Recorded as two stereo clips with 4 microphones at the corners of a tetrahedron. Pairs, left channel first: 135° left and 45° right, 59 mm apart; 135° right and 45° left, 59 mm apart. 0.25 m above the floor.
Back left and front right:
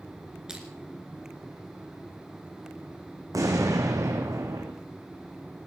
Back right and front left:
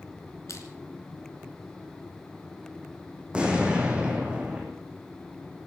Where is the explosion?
30° right, 3 m.